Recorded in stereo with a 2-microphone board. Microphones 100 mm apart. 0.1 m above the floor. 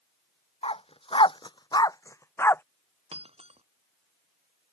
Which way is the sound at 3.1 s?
85° right.